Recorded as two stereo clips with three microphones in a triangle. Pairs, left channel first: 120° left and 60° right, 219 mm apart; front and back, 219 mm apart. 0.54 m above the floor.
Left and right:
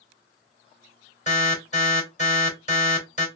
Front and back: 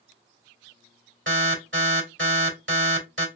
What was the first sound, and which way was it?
An alarm, 170° left.